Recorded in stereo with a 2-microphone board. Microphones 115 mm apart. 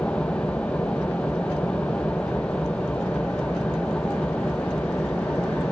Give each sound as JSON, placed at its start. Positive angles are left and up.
{"t": 0.0, "sound": "an engine running", "side_deg": 10, "distance_m": 1.8}